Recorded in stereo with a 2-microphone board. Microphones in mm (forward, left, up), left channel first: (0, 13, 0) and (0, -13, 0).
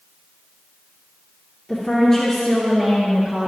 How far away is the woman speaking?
About 2.5 m.